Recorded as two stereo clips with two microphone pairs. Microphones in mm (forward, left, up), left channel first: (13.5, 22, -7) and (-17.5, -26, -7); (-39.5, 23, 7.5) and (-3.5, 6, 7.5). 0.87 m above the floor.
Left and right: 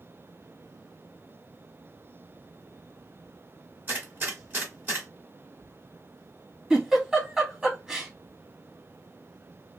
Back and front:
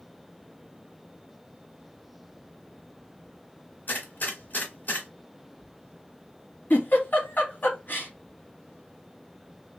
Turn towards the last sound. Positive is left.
turn(degrees=170)